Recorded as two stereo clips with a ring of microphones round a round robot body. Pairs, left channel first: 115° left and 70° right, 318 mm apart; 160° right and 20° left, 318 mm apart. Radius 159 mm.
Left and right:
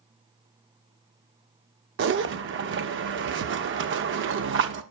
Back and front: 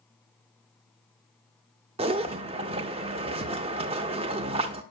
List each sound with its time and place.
2.0 s a zipper: 40° right, 0.5 m